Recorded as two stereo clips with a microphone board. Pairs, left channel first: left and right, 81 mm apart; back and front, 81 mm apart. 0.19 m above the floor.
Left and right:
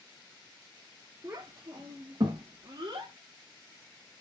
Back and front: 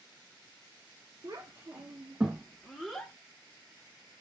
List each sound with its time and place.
1.2 s a child speaking: 40° right, 1.3 m; by 3.1 s 105° right, 1.4 m